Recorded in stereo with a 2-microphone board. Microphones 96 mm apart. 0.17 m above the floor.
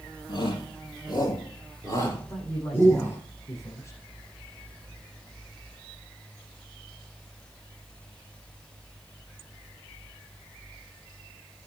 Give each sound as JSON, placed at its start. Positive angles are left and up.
{"t": 0.3, "sound": "a shout", "side_deg": 50, "distance_m": 5.0}
{"t": 2.3, "sound": "a man speaking", "side_deg": 30, "distance_m": 9.0}